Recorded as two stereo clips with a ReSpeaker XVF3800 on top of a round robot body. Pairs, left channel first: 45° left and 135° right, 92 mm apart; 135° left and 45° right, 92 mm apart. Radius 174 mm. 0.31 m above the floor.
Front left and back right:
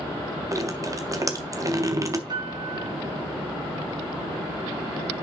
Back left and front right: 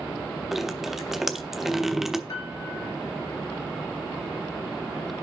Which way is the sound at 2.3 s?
175° right.